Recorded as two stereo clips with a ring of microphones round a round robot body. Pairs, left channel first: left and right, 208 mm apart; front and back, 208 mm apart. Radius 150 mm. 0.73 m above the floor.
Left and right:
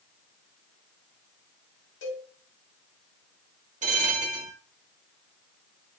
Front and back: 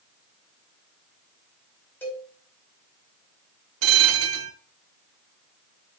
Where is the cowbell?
80° left, 4.5 m.